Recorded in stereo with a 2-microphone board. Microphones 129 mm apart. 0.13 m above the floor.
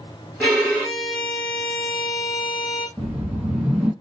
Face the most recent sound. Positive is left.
turn(degrees=-5)  # may be behind; listen again after turning